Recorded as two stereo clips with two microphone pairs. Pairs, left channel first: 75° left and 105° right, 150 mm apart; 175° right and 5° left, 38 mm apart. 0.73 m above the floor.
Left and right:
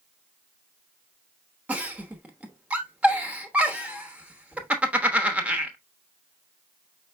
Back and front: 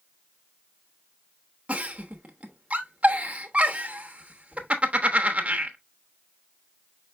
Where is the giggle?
30° right, 0.9 m.